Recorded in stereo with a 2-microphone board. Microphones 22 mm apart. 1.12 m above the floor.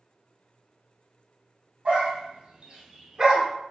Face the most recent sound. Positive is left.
turn(degrees=-20)  # may be behind; listen again after turning